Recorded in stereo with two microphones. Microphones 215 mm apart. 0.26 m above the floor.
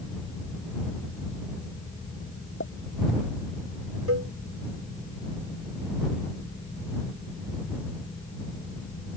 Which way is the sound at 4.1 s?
75° right (ahead or behind).